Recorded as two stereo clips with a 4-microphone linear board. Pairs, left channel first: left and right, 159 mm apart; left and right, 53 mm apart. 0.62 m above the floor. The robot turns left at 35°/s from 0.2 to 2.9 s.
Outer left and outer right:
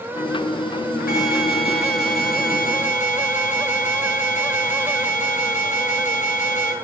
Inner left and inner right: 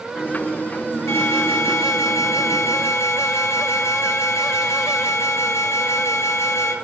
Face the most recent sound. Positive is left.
turn(degrees=55)